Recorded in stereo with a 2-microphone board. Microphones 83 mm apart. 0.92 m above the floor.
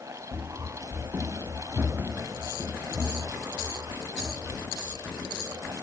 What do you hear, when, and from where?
0.3 s running footsteps: 25° right (ahead or behind), 1.3 m; by 5.7 s 15° right (ahead or behind), 7 m